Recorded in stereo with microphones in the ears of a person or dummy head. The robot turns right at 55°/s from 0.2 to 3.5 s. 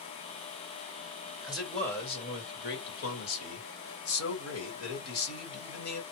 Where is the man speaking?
10° right, 1.6 m; by 6.0 s 105° left, 1.6 m.